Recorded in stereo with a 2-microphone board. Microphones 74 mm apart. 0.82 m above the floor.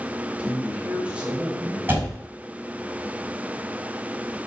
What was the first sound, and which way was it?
A man speaking, 15° right (ahead or behind).